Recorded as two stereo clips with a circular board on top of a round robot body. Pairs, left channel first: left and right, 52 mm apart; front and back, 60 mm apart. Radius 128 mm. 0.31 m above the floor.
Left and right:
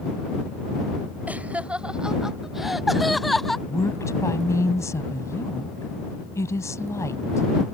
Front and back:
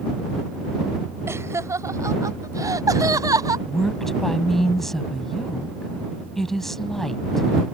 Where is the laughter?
145° right; by 3.6 s 175° left.